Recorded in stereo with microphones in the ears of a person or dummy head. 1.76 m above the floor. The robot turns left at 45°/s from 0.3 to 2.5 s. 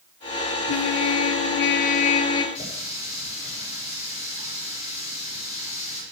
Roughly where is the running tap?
Left.